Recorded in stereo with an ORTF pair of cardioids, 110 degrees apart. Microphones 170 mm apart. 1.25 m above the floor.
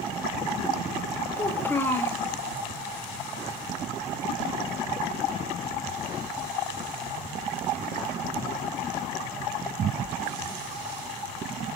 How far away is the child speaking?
About 0.8 m.